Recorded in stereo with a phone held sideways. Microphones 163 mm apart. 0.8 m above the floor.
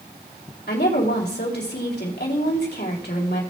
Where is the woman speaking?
75° left (ahead or behind), 2.5 m.